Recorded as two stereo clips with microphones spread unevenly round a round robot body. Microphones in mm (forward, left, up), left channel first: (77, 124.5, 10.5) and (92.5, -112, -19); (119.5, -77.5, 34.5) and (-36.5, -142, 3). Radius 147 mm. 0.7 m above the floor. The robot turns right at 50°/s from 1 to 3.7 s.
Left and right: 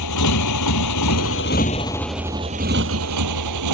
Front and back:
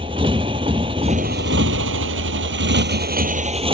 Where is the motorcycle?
125° left; by 3.8 s 100° right.